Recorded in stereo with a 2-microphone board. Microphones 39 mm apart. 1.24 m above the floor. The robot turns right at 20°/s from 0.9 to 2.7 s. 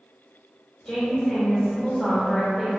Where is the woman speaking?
155° left, 1.7 m; by 2.7 s 170° right, 1.7 m.